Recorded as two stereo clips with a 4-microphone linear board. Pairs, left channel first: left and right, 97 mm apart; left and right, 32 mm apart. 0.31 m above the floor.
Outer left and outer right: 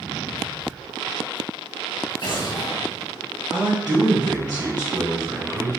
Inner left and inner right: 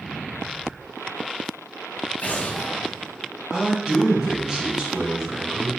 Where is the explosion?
55° left (ahead or behind), 0.8 m.